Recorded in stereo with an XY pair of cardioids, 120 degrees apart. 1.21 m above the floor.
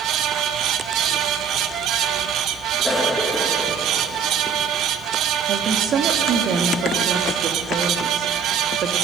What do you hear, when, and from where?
0.0 s a fan: 65° right, 0.8 m
2.8 s a cough: straight ahead, 1.6 m
5.5 s a woman speaking: 55° right, 1.7 m